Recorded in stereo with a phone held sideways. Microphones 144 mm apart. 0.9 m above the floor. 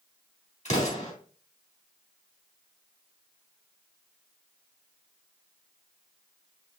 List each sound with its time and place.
0.7 s an explosion: 55° left (ahead or behind), 3 m